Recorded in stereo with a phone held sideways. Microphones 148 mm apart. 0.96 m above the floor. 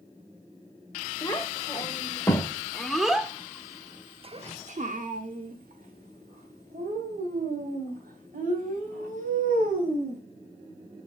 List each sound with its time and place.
1.2 s a child speaking: 25° left (ahead or behind), 2.5 m; by 10.2 s 70° right (ahead or behind), 4.5 m